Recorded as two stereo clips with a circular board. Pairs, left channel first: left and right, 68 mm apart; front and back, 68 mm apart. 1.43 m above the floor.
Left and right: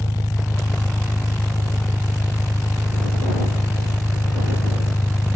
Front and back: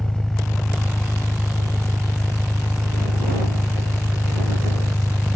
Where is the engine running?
80° left.